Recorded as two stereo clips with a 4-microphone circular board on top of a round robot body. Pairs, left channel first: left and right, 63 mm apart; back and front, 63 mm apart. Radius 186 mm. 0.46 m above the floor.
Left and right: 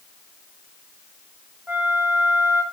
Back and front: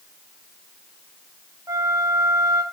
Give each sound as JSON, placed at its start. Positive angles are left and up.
{"t": 1.7, "sound": "a flute", "azimuth_deg": -25, "distance_m": 2.5}